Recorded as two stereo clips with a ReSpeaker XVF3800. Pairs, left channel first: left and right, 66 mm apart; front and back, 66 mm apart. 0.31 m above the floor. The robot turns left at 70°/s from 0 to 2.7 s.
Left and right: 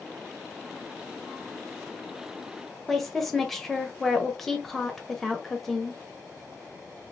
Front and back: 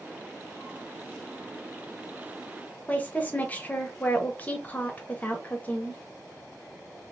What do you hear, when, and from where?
2.9 s a woman speaking: 5° left, 0.9 m